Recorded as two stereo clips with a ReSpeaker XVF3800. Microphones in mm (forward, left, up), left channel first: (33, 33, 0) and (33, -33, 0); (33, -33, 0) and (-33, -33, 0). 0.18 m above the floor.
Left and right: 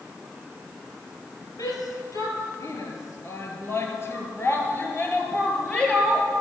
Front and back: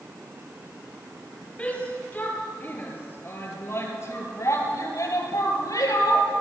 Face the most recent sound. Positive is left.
turn(degrees=10)